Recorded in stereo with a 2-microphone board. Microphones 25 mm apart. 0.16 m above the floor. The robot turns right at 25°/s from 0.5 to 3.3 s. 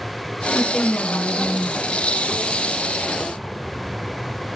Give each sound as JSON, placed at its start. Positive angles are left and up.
{"t": 0.5, "sound": "a woman speaking", "side_deg": 10, "distance_m": 1.1}